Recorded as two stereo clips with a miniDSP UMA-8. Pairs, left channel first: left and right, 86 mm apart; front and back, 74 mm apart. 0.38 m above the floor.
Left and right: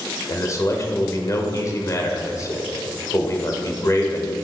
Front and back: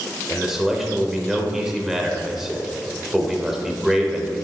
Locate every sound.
0.3 s a man speaking: 95° left, 1.0 m